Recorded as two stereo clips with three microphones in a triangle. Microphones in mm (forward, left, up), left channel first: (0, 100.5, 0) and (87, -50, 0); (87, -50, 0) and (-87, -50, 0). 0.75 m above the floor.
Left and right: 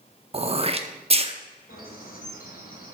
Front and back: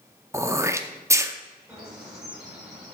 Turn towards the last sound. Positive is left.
turn(degrees=95)